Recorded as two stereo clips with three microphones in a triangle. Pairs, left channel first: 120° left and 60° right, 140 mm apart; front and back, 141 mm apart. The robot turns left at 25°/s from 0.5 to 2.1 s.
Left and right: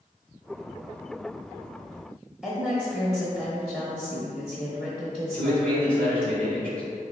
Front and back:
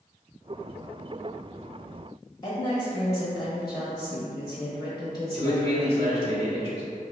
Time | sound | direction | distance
2.4 | a woman speaking | 20° left | 1.1 m
5.3 | a man speaking | 160° right | 1.4 m